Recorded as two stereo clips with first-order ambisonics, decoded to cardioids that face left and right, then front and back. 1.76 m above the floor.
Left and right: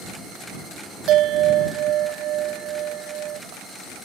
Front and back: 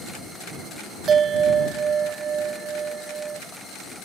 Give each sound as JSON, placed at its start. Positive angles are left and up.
{"t": 1.1, "sound": "a bell", "azimuth_deg": -120}